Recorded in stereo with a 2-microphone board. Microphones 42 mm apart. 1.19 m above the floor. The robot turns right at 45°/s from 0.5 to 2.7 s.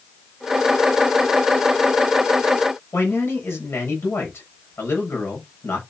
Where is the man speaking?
80° left, 7 m.